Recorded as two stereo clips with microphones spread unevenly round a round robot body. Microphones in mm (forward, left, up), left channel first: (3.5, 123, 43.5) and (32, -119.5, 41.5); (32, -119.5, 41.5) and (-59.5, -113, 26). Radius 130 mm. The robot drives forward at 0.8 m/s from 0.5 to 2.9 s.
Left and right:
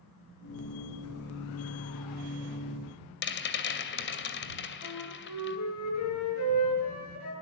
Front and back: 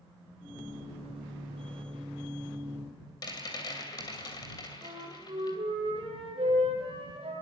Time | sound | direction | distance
3.2 | a rattle | 60° left | 2.5 m
4.8 | a flute | 115° left | 7 m